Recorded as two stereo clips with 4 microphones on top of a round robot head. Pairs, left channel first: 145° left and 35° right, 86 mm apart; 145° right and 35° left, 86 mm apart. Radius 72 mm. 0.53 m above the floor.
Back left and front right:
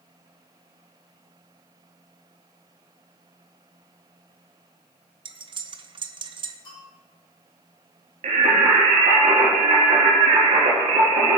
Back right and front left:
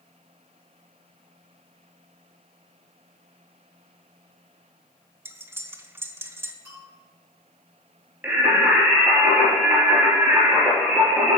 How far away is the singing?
About 2.5 m.